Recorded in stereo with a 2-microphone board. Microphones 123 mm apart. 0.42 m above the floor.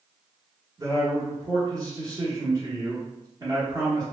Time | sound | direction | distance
0.8 | a man speaking | 30° right (ahead or behind) | 1.0 m